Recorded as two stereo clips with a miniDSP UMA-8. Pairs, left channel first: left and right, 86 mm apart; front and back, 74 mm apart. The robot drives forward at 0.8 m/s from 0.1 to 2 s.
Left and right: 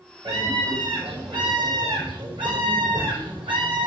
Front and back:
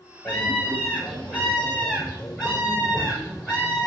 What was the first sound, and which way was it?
A scream, 70° right.